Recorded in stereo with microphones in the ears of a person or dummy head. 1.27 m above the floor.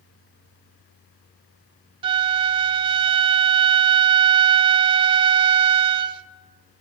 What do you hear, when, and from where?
2.0 s a flute: 25° right (ahead or behind), 0.8 m